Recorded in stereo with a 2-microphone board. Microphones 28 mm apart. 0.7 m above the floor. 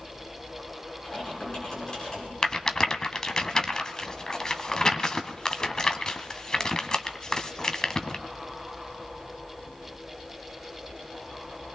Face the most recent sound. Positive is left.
turn(degrees=20)  # may be behind; listen again after turning